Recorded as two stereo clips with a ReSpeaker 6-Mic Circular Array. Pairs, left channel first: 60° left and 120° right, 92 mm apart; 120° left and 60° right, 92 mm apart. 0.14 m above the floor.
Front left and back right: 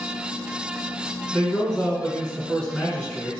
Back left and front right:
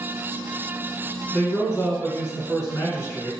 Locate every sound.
1.3 s a man speaking: 140° left, 1.3 m